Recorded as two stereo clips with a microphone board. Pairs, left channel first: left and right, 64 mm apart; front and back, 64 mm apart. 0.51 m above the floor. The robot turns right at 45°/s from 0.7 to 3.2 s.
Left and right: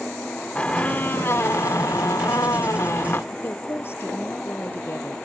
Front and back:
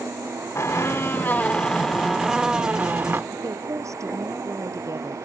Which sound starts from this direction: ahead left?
A squeak, at 0.6 s.